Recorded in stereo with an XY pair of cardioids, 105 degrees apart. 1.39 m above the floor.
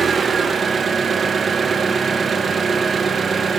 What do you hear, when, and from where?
0.0 s an engine running: 35° right, 1.0 m